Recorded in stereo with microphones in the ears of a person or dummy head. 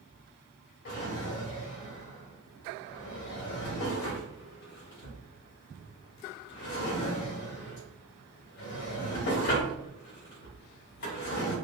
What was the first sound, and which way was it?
A drawer, 70° left (ahead or behind).